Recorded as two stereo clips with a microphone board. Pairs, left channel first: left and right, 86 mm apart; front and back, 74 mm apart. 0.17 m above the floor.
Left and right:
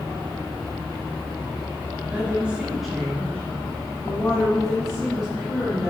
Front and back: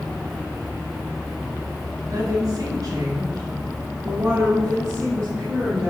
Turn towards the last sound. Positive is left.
turn(degrees=120)